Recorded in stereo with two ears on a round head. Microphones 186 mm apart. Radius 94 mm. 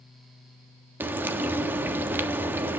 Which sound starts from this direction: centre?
Frying, at 1.0 s.